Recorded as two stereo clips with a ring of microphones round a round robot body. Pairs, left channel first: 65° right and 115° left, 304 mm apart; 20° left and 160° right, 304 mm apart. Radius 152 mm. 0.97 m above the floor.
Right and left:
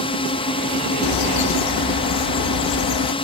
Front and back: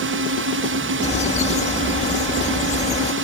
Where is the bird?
45° right.